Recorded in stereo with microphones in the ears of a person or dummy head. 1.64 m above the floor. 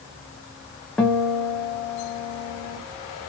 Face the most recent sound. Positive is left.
turn(degrees=5)  # may be behind; listen again after turning